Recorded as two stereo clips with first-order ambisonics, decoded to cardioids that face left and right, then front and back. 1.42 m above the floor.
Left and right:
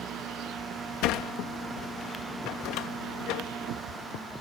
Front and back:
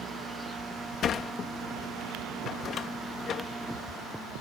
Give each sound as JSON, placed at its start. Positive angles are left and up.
{"t": 1.0, "sound": "a sliding door", "azimuth_deg": 60}